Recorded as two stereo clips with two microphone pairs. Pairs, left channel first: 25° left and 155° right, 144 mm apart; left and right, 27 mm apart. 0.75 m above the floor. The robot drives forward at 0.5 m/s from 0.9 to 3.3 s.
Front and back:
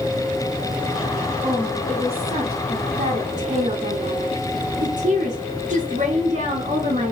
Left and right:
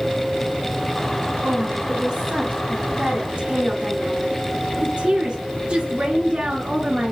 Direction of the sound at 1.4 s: 90° right.